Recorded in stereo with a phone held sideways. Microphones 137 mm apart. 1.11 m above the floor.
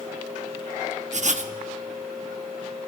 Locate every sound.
1.1 s writing: 60° right (ahead or behind), 0.8 m